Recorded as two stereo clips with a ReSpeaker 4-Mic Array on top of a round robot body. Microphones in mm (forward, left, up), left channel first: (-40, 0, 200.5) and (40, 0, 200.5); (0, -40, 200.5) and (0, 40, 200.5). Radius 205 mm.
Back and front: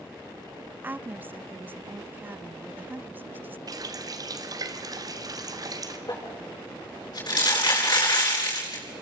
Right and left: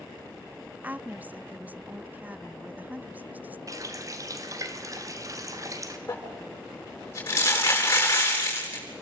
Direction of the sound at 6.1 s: 150° right.